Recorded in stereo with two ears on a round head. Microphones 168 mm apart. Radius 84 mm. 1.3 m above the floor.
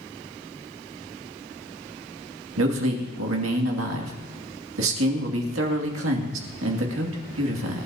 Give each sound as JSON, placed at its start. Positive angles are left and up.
{"t": 2.6, "sound": "a man speaking", "side_deg": -80, "distance_m": 2.5}